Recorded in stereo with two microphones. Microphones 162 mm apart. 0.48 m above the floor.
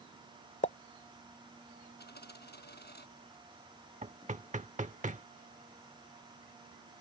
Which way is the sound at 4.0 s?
45° right (ahead or behind).